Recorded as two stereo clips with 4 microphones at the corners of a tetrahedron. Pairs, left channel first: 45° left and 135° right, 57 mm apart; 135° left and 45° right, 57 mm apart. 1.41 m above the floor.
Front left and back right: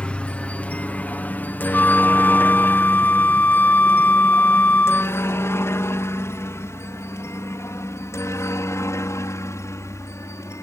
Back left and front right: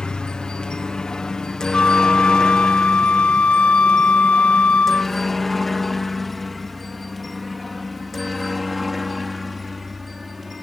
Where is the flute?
75° left.